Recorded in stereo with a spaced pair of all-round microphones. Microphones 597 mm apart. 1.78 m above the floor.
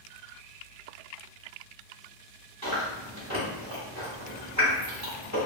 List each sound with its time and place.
2.6 s chewing: 30° right (ahead or behind), 1.4 m